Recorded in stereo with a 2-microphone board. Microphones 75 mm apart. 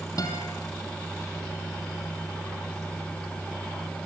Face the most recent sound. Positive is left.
turn(degrees=55)  # may be behind; listen again after turning